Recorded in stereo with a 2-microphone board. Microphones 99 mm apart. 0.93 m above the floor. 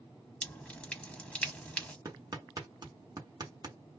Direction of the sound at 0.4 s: 10° left (ahead or behind).